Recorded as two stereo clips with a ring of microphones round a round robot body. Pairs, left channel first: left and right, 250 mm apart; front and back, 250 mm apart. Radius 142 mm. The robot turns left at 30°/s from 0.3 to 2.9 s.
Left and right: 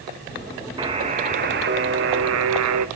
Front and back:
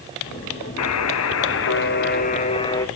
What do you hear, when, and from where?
0.8 s a buzzer: 15° right, 1.0 m; by 2.9 s 80° right, 1.0 m